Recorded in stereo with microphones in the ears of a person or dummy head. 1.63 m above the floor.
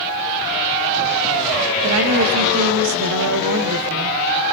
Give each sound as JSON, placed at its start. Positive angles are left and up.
{"t": 1.8, "sound": "a woman speaking", "side_deg": -85, "distance_m": 2.5}